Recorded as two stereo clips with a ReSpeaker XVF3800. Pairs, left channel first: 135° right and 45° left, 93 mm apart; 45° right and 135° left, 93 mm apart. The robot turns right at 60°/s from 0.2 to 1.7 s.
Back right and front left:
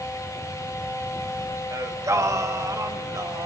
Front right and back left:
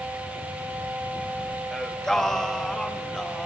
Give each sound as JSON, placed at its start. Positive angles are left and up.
{"t": 1.7, "sound": "singing", "azimuth_deg": 35, "distance_m": 0.7}